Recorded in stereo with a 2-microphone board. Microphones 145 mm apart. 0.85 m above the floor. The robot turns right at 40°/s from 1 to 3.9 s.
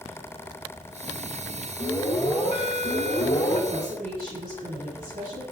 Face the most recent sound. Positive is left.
turn(degrees=-80)